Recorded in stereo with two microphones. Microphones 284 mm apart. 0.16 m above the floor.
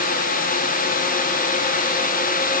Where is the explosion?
I don't hear an explosion.